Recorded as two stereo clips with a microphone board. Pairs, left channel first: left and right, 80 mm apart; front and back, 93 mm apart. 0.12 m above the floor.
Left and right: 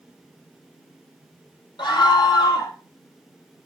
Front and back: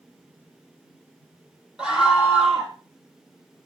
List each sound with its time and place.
1.8 s a scream: 100° left, 4.5 m